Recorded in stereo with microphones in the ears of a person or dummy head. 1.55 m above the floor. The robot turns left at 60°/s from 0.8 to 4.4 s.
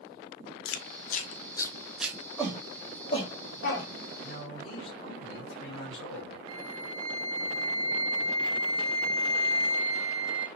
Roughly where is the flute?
Right.